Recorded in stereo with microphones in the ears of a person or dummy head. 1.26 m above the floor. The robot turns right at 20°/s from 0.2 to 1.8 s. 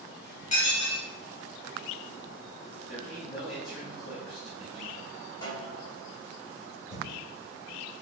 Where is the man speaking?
5° right (ahead or behind), 1.9 m.